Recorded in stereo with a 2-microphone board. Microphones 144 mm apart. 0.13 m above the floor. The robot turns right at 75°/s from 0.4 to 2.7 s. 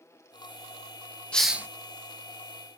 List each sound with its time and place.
1.3 s a hiss: 5° left (ahead or behind), 0.5 m; by 1.7 s 15° right (ahead or behind), 0.5 m